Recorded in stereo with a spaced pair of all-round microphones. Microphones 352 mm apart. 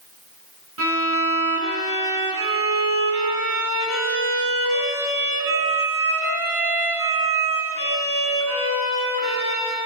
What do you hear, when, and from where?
0.8 s a violin: 65° right (ahead or behind), 8.5 m